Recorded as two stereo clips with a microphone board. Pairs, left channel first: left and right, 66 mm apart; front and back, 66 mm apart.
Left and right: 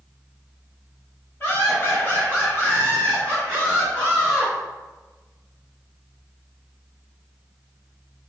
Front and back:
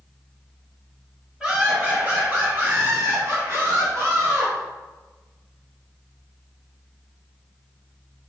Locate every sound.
1.4 s laughter: 110° left, 1.8 m; by 4.5 s 175° left, 2.5 m